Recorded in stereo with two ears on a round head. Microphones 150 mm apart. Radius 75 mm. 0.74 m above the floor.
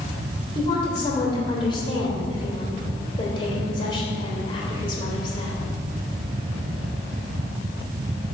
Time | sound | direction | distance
0.6 | a woman speaking | 30° left (ahead or behind) | 2.5 m